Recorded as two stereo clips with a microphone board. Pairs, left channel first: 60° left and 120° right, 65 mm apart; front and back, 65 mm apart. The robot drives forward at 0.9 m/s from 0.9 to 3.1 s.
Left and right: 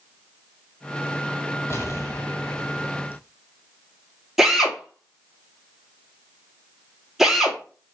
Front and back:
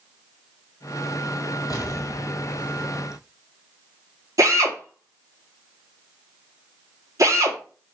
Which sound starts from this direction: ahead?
An explosion, at 1.7 s.